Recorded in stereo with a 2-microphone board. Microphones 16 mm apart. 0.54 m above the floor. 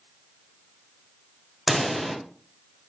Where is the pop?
5° right (ahead or behind), 1.2 m.